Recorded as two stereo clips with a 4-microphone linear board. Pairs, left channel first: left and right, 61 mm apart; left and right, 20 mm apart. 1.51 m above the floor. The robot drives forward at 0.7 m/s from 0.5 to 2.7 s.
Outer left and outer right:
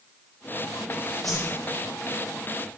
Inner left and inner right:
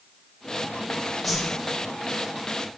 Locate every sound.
1.2 s a whoosh: centre (ahead or behind), 1.9 m